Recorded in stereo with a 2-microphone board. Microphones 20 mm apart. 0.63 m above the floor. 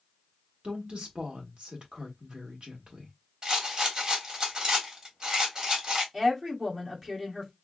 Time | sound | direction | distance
0.6 | a woman speaking | 60° right (ahead or behind) | 1.5 m
3.4 | a rattle | 40° right (ahead or behind) | 1.4 m
6.1 | a woman speaking | 25° right (ahead or behind) | 1.4 m